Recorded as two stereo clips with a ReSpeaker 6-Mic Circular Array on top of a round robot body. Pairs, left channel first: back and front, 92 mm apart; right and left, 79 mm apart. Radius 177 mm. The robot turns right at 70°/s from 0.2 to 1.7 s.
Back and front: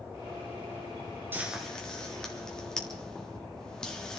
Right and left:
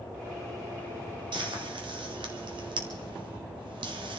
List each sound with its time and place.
1.3 s frying: 70° left, 1.7 m; by 4.2 s 95° left, 1.7 m